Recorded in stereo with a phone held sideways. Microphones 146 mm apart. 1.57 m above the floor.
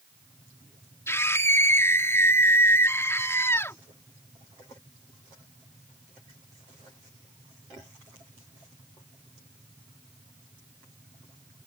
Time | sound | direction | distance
1.1 | a scream | 15° left (ahead or behind) | ?